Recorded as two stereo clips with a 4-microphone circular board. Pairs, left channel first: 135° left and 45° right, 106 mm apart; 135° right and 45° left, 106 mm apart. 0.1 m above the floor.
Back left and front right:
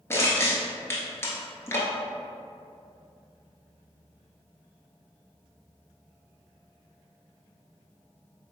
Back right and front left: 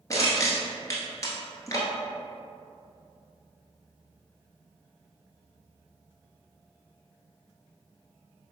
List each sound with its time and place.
0.1 s crushing: 175° right, 1.2 m